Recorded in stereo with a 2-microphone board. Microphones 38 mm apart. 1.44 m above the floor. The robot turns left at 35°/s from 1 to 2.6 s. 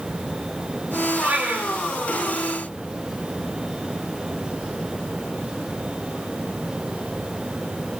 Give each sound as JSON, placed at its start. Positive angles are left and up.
{"t": 1.2, "sound": "a cat meowing", "side_deg": -55, "distance_m": 2.5}